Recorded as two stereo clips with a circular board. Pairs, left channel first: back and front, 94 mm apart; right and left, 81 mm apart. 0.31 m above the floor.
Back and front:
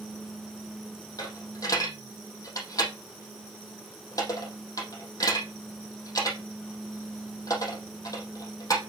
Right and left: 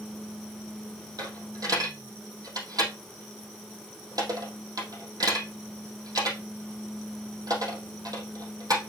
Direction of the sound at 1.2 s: 130° left.